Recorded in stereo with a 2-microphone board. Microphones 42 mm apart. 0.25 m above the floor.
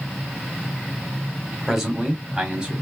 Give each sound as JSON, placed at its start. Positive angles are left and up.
{"t": 1.7, "sound": "a man speaking", "side_deg": -10, "distance_m": 1.6}